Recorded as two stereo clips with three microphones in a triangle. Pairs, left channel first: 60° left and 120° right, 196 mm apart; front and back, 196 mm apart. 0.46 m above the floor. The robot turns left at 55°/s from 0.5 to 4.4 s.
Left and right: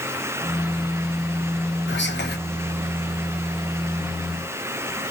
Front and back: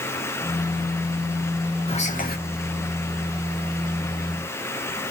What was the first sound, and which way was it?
Whispering, 60° left.